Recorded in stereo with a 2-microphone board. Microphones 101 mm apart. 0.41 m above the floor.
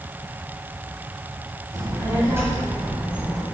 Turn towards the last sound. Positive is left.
turn(degrees=-5)  # may be behind; listen again after turning